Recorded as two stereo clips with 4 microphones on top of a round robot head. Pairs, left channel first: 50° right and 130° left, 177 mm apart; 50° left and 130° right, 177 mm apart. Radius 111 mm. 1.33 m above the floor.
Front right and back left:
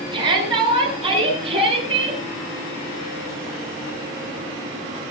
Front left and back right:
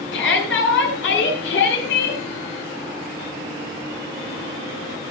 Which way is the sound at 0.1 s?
65° left.